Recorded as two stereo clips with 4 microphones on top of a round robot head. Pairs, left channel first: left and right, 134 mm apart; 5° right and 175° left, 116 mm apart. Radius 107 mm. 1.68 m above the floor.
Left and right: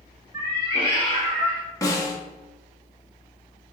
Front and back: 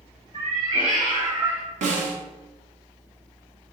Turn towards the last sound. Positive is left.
turn(degrees=155)